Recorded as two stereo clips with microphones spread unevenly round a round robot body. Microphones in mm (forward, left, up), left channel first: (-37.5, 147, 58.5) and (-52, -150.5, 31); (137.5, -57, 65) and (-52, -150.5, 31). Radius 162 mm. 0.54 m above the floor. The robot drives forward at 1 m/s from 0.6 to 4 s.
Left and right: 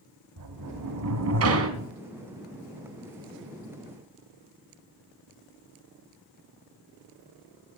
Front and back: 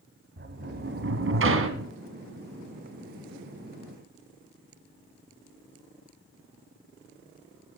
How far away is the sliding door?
About 2 m.